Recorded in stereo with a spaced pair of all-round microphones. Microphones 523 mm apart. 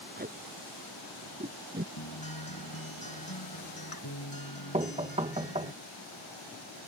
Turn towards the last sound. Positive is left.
turn(degrees=-10)  # may be behind; listen again after turning